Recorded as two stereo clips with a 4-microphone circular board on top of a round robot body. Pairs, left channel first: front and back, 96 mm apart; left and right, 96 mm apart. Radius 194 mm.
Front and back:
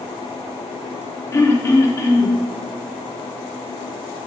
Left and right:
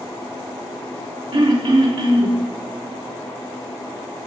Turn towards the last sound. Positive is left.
turn(degrees=-60)